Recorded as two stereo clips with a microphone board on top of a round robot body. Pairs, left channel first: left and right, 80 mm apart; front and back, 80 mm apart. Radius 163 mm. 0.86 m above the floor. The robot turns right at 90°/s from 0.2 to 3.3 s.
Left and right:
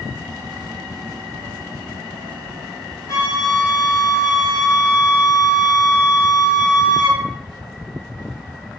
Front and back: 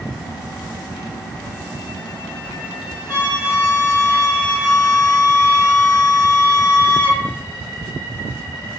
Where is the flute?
35° left, 1.1 m; by 7.2 s 55° left, 1.1 m.